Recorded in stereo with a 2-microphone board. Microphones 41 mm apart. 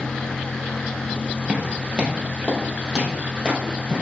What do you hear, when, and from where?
1.5 s footsteps: 15° right (ahead or behind), 2.0 m; by 4.0 s 20° right (ahead or behind), 3.5 m